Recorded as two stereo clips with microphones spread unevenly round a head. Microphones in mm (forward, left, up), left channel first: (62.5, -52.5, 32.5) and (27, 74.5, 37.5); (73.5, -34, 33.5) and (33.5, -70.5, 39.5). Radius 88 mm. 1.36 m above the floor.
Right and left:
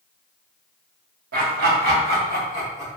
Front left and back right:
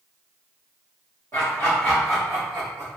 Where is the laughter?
105° left, 1.0 m; by 3.0 s 155° left, 1.4 m.